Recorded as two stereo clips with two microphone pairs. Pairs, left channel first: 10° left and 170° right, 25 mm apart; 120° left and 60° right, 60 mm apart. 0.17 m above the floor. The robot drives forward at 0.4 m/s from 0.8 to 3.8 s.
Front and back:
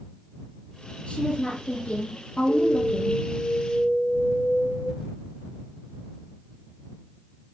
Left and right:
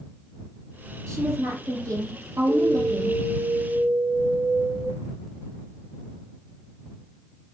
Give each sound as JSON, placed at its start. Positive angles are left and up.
{"t": 1.1, "sound": "a woman speaking", "azimuth_deg": -20, "distance_m": 5.0}
{"t": 2.5, "sound": "an alarm", "azimuth_deg": 10, "distance_m": 3.0}